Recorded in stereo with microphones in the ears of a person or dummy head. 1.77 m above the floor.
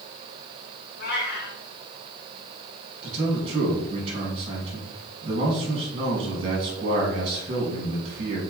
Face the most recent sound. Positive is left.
turn(degrees=-35)  # may be behind; listen again after turning